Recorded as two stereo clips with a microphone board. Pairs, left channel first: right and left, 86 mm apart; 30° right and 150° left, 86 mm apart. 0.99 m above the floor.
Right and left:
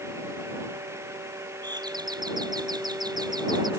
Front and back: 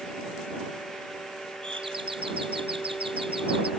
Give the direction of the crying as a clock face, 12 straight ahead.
I don't hear crying.